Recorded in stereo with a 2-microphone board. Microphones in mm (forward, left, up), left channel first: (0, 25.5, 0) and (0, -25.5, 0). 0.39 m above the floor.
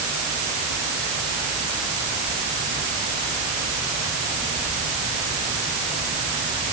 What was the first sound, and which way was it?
Only background noise.